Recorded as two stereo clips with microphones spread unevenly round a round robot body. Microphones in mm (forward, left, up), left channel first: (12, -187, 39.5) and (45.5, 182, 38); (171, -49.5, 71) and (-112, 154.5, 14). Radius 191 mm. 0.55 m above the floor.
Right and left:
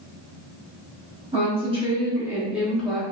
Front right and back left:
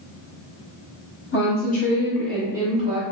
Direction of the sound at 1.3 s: 20° left.